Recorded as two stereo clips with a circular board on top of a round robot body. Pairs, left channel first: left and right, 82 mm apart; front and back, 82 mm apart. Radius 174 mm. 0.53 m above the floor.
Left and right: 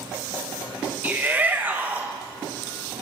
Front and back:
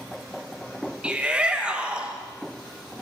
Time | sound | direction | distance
1.0 | a shout | 125° right | 1.0 m